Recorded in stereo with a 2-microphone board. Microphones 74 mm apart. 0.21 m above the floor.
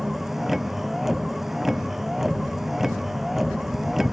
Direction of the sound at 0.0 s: 5° right (ahead or behind).